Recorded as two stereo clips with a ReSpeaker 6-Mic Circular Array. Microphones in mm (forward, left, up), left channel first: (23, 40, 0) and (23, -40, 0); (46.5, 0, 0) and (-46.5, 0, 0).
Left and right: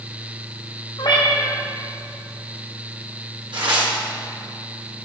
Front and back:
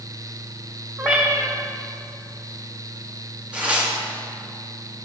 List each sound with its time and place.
1.0 s a cat meowing: 100° left, 1.9 m
3.5 s tearing paper: 105° right, 1.8 m